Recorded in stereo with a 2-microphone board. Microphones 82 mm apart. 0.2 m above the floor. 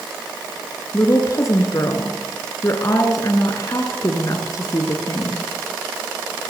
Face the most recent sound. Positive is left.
turn(degrees=40)  # may be behind; listen again after turning